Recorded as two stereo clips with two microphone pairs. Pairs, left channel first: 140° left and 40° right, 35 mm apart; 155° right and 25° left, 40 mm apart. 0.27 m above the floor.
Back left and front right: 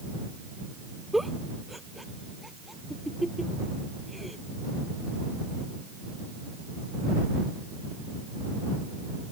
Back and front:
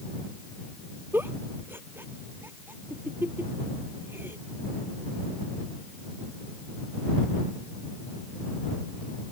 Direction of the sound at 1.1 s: 50° left.